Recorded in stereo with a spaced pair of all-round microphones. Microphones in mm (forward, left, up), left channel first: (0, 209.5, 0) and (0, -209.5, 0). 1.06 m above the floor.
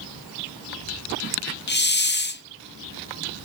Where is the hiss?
25° left (ahead or behind), 0.6 m.